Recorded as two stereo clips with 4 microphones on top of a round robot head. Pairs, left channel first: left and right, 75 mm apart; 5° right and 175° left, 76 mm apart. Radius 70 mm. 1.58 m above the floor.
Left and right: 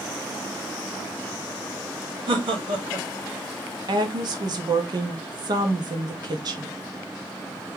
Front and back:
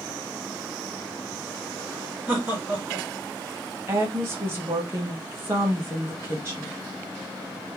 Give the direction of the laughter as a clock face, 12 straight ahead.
3 o'clock.